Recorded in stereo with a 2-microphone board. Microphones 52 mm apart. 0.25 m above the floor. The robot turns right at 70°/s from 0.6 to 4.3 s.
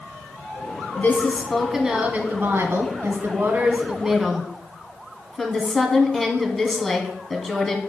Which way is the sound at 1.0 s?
130° left.